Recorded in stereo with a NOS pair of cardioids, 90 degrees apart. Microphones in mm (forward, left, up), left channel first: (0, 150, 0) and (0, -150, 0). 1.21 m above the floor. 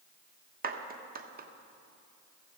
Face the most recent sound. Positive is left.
turn(degrees=-30)